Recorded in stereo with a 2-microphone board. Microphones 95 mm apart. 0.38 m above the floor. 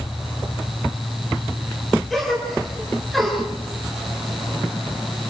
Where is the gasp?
Centre (ahead or behind), 8.5 m.